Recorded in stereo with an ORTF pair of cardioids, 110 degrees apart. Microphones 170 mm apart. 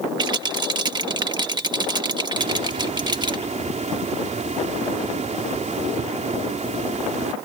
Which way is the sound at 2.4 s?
45° right.